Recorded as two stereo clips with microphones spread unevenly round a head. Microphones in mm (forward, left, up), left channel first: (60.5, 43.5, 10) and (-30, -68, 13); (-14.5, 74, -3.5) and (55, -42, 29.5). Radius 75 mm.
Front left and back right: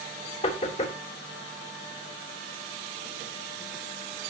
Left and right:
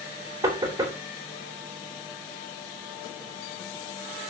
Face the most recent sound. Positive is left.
turn(degrees=10)